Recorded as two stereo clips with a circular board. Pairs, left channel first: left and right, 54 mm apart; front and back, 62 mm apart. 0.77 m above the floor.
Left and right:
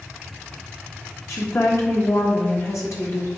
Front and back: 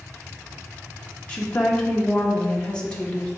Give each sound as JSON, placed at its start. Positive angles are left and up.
{"t": 1.3, "sound": "a woman speaking", "azimuth_deg": 70, "distance_m": 1.3}